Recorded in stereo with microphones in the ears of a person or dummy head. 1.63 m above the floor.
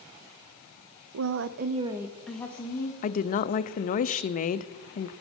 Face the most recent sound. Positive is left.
turn(degrees=40)  # may be behind; listen again after turning